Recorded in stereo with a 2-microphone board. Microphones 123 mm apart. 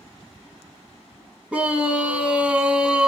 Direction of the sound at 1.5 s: 10° right (ahead or behind).